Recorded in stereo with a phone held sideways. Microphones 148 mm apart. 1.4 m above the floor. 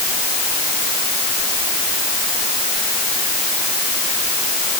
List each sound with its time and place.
Only background noise.